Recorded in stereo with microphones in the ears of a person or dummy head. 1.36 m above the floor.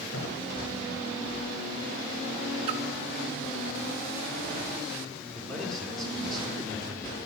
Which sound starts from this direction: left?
A thud, at 0.1 s.